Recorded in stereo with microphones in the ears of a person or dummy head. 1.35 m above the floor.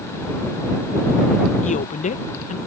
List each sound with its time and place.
1.6 s a woman speaking: 35° left (ahead or behind)